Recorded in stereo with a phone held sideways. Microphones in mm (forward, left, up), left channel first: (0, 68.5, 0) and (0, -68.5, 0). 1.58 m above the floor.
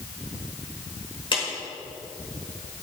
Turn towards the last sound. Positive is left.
turn(degrees=35)  # may be behind; listen again after turning